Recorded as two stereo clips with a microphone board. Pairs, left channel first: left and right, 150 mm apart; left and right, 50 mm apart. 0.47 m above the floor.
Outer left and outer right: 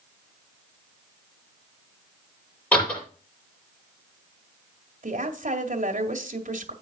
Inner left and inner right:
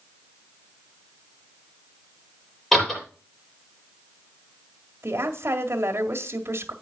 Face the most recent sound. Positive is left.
turn(degrees=-60)  # may be behind; listen again after turning